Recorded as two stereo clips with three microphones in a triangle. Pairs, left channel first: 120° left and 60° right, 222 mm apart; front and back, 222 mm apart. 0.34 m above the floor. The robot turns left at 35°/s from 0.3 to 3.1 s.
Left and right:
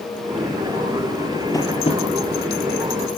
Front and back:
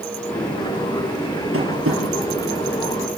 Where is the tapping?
165° right, 4 m; by 2.0 s straight behind, 4 m.